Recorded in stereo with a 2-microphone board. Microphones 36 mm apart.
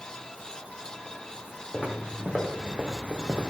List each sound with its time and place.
1.7 s footsteps: 30° right (ahead or behind), 4 m; by 3.5 s 50° right (ahead or behind), 1.5 m